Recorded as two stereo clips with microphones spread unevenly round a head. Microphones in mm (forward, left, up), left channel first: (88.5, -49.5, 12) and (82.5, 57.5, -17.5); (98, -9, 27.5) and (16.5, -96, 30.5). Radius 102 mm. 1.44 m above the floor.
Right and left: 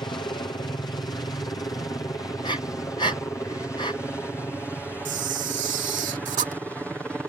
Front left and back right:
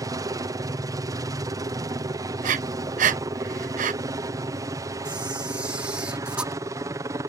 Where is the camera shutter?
145° left.